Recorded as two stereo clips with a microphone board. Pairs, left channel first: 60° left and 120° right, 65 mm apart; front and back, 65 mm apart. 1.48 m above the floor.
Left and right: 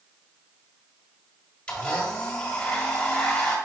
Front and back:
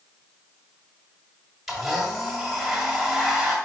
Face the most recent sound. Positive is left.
turn(degrees=100)